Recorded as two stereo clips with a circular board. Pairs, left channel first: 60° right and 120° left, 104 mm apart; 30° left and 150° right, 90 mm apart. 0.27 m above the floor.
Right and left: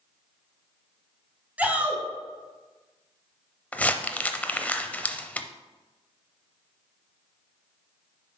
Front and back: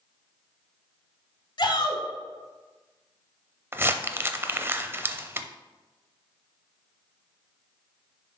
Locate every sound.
1.6 s a shout: 45° left, 1.9 m
3.7 s crumpling: 120° right, 0.5 m